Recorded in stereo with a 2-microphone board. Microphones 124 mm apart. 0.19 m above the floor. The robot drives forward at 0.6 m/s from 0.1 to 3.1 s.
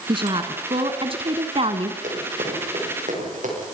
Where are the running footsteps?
75° right (ahead or behind), 10 m; by 3.5 s 85° right, 11 m.